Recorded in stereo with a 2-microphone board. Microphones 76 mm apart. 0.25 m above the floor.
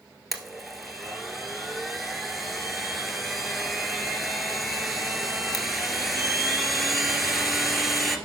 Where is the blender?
5° right (ahead or behind), 1.5 m.